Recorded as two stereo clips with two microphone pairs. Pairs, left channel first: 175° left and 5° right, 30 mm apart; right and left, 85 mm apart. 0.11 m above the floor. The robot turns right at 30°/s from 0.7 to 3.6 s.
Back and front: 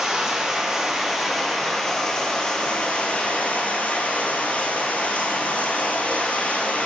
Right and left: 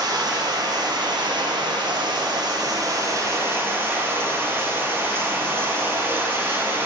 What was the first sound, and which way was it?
Running water, 65° left.